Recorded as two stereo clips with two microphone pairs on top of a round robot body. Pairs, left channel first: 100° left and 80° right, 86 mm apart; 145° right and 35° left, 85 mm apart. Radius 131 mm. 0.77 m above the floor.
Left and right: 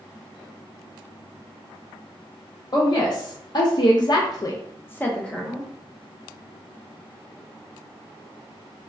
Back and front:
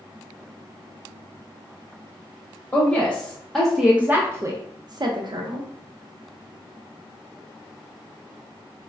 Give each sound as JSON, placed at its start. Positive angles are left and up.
{"t": 2.7, "sound": "a woman speaking", "azimuth_deg": 140, "distance_m": 1.0}